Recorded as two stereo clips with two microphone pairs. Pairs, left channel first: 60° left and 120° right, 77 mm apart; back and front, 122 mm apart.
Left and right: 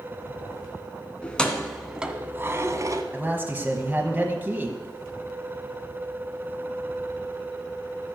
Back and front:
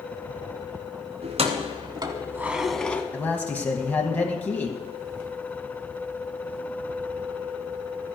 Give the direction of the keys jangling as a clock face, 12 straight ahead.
12 o'clock.